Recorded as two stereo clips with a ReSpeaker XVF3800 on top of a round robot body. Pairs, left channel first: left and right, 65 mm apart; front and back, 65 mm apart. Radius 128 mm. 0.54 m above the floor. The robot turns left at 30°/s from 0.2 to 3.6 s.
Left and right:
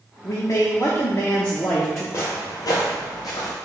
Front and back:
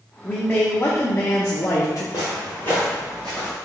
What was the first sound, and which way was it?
A man speaking, 65° left.